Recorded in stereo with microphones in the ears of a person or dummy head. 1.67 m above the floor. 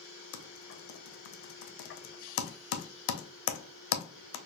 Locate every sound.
0.3 s typing on a keyboard: 70° left (ahead or behind), 0.6 m